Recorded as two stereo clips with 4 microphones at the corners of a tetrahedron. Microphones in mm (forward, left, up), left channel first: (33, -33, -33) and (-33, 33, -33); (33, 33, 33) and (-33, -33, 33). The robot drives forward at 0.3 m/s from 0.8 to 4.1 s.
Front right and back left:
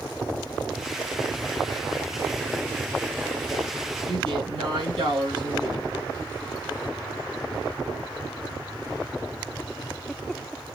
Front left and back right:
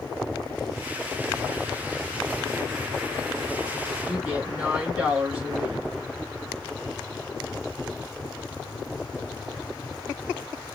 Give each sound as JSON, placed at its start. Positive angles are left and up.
{"t": 4.1, "sound": "a woman speaking", "azimuth_deg": 150, "distance_m": 2.0}